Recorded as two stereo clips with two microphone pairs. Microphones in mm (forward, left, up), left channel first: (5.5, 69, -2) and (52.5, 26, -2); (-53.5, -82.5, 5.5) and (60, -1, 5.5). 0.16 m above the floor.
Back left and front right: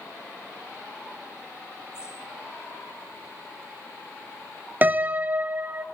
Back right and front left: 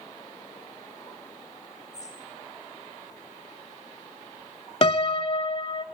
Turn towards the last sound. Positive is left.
turn(degrees=-100)